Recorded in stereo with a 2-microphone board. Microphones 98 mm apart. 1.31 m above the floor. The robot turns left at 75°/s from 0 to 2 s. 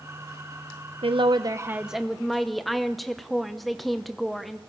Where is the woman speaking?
110° right, 0.8 m; by 4.6 s straight behind, 0.8 m.